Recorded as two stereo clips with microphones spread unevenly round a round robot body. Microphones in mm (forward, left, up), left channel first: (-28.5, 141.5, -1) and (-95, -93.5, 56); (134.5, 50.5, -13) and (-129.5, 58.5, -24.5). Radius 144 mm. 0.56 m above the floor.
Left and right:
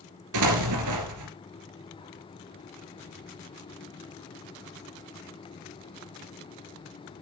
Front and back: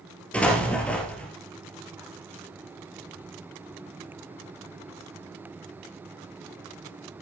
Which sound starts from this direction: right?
An explosion, at 0.3 s.